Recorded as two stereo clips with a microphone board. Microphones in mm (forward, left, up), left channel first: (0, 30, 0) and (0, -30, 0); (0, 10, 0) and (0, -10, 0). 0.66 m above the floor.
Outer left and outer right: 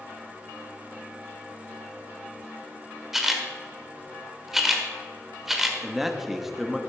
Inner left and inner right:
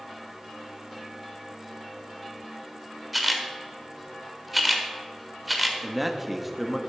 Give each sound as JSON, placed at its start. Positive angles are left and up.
{"t": 3.1, "sound": "a camera shutter", "side_deg": -5, "distance_m": 1.5}
{"t": 5.8, "sound": "a man speaking", "side_deg": -5, "distance_m": 1.0}